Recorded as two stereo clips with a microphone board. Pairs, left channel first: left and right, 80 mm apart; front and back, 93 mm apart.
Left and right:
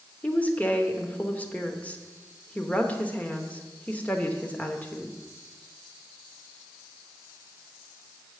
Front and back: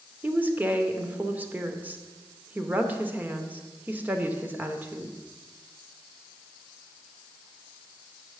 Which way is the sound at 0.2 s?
140° left.